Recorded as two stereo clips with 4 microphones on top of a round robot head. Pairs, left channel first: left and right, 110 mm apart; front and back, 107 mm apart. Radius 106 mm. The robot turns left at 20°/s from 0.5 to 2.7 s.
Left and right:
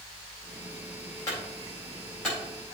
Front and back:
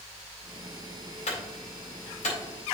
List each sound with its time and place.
1.3 s a clunk: 20° left, 4.5 m; by 2.4 s 5° right, 4.5 m